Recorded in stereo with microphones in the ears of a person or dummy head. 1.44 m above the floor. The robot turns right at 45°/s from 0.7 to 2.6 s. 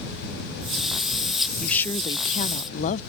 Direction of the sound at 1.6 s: 10° left.